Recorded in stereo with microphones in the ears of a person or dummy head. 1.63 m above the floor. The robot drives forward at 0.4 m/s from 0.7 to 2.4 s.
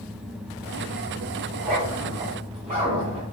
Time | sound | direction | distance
1.5 | a zipper | 35° right (ahead or behind) | 1.4 m